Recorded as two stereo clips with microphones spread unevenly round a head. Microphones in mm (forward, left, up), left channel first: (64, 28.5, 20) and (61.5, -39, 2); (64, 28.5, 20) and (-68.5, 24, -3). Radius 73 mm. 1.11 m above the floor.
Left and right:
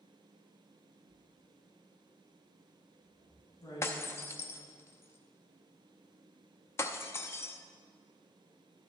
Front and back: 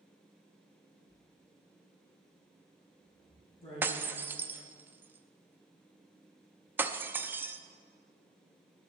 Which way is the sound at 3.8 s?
100° left.